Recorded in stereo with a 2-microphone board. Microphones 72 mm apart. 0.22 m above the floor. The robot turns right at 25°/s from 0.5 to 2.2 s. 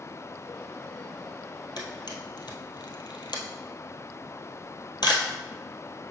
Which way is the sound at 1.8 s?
75° left (ahead or behind).